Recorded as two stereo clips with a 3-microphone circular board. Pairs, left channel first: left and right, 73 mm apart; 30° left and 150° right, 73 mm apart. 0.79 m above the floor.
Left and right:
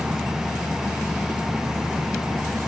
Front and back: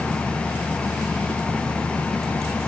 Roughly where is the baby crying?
I don't hear a baby crying.